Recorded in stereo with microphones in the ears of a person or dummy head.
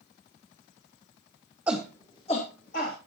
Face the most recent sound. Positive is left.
turn(degrees=40)  # may be behind; listen again after turning